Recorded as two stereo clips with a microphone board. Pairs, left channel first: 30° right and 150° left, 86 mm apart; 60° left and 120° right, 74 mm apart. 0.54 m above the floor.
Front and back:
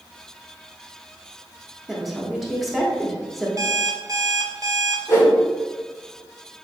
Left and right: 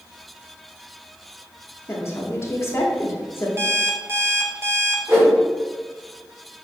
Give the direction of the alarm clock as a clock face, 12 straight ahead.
6 o'clock.